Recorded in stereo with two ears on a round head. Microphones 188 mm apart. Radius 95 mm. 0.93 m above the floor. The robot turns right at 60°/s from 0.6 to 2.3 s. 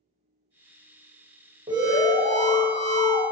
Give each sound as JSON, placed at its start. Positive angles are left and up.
{"t": 1.7, "sound": "an alarm", "azimuth_deg": -20, "distance_m": 1.1}